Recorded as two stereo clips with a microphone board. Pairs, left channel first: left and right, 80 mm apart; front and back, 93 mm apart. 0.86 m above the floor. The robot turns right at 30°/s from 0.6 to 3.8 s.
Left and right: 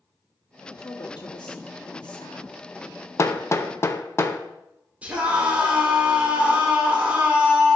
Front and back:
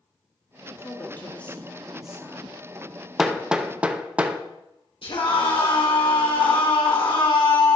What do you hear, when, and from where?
0.8 s a woman speaking: 60° left, 1.7 m; by 2.6 s 115° left, 1.7 m
3.2 s hammering: 100° left, 0.6 m; by 4.4 s 115° left, 0.6 m
5.0 s a scream: 15° right, 3 m